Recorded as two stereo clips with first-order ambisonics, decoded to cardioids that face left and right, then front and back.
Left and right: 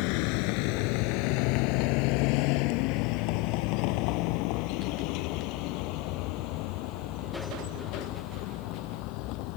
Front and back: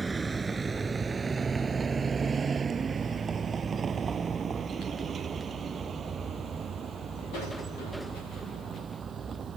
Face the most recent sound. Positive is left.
turn(degrees=115)